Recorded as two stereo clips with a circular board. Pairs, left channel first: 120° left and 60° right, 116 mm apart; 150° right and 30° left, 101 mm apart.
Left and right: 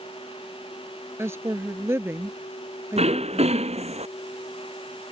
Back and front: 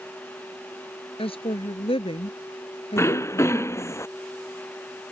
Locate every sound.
1.2 s a woman speaking: 130° right
3.0 s throat clearing: 85° right